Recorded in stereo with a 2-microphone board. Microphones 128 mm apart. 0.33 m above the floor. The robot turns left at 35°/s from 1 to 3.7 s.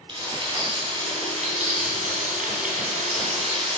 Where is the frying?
35° right (ahead or behind), 3 m; by 3.8 s 50° right (ahead or behind), 3 m.